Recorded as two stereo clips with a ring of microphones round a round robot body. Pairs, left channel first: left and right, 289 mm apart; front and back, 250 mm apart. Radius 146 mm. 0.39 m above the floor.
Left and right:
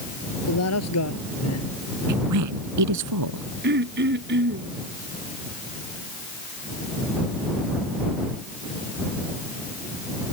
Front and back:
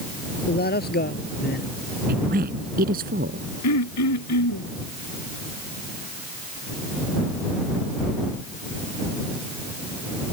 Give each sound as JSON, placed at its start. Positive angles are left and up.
{"t": 0.5, "sound": "a man speaking", "azimuth_deg": 50}
{"t": 2.1, "sound": "a woman speaking", "azimuth_deg": -120}
{"t": 3.6, "sound": "throat clearing", "azimuth_deg": -35}